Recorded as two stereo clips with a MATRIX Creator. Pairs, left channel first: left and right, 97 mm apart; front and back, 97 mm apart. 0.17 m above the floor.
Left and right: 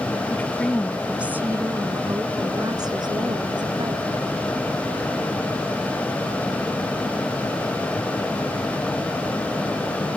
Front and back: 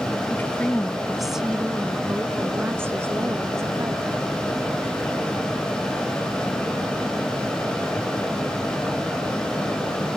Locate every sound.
0.3 s a woman speaking: 45° left; by 4.2 s 120° right